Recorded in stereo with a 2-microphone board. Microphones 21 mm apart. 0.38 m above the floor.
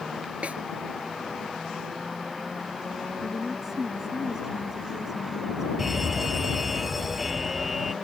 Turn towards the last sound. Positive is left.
turn(degrees=-5)  # may be behind; listen again after turning